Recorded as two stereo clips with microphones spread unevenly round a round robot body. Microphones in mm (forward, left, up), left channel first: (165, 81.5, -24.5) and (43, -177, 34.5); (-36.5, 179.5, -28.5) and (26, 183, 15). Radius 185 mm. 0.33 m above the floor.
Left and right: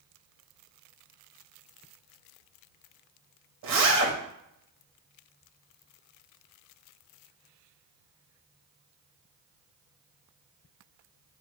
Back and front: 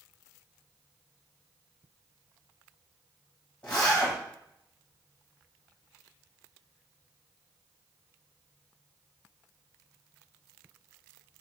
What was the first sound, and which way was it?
A zipper, 140° right.